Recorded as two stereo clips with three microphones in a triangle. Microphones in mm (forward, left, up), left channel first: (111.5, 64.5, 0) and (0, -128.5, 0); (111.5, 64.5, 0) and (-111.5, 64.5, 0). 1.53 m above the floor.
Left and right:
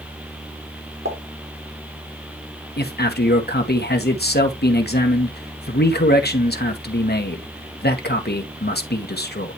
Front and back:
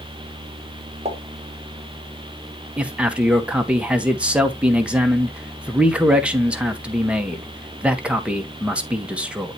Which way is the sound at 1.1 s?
120° right.